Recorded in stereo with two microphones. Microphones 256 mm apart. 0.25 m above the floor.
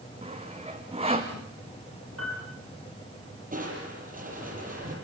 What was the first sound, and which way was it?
Sawing, 25° right (ahead or behind).